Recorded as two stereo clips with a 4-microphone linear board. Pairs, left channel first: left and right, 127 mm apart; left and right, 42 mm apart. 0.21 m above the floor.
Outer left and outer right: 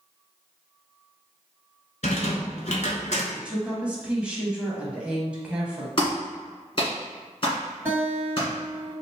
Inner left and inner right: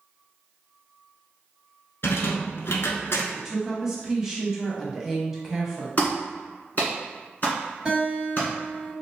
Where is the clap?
45° left (ahead or behind), 1.8 m.